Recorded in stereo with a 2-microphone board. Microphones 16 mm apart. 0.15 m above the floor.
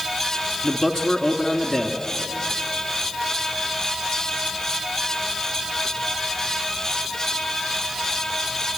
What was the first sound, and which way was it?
A man speaking, 40° left (ahead or behind).